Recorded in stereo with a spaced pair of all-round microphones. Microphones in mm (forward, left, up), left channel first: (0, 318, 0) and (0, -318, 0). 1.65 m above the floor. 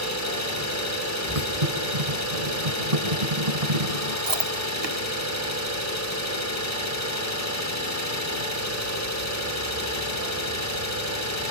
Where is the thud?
60° right (ahead or behind), 5 m.